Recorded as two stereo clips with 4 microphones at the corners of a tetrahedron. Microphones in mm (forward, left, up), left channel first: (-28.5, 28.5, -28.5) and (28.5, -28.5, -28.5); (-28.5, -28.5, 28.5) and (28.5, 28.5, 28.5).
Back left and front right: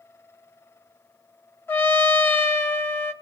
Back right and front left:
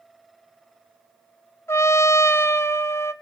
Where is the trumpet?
175° right, 0.8 m.